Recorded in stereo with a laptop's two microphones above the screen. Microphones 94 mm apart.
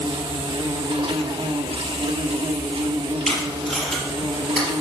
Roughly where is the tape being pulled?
Centre.